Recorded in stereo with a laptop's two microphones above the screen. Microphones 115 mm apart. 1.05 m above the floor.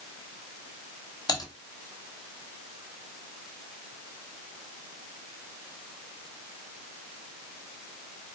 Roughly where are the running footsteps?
I don't hear running footsteps.